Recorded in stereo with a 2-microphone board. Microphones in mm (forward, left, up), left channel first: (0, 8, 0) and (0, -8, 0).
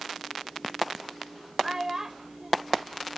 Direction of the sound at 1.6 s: 35° right (ahead or behind).